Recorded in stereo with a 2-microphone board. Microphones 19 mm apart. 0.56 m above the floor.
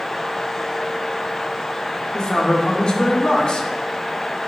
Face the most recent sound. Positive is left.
turn(degrees=50)  # may be behind; listen again after turning